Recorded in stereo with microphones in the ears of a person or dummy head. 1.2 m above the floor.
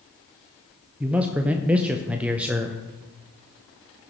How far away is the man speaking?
About 0.5 m.